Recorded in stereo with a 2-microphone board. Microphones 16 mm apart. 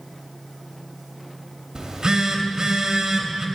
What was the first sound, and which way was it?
A phone buzzing, 45° right (ahead or behind).